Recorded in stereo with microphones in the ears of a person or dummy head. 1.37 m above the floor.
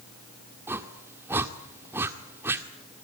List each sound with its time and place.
0.7 s a whoosh: 15° right (ahead or behind), 1.8 m